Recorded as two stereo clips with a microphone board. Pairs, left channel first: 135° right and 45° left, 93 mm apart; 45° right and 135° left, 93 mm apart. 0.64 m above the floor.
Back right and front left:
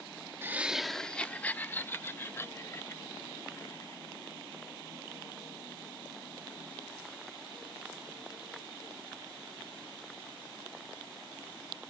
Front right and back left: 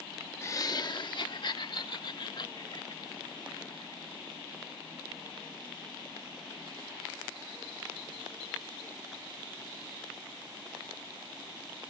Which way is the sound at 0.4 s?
5° right.